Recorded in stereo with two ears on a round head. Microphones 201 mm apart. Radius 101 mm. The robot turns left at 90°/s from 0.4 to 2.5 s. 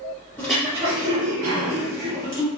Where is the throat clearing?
10° left, 1.8 m; by 2.5 s straight behind, 1.8 m.